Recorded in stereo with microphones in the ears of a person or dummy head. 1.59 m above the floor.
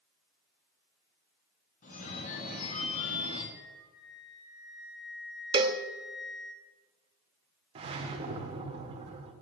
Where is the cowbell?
25° right (ahead or behind), 0.5 m.